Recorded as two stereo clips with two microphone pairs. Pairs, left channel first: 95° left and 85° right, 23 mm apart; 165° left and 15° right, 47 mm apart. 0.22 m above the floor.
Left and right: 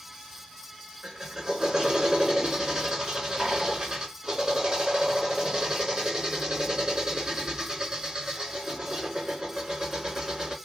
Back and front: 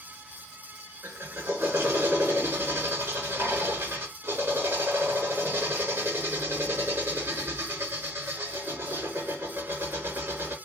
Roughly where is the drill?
Ahead right.